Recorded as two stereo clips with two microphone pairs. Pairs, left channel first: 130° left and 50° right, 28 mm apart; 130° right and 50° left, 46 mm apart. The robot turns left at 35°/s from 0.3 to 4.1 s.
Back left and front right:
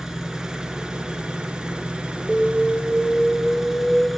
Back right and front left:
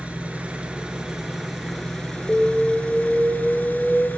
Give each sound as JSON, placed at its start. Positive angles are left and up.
{"t": 0.0, "sound": "an engine running", "azimuth_deg": 10, "distance_m": 1.3}
{"t": 2.3, "sound": "an alarm", "azimuth_deg": -115, "distance_m": 0.8}